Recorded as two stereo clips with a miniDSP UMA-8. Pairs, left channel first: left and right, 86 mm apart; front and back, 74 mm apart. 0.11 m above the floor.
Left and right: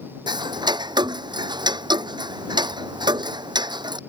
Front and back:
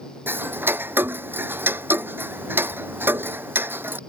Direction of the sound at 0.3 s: 120° right.